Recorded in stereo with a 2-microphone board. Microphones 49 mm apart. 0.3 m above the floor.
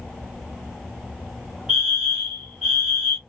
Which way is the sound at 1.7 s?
20° right (ahead or behind).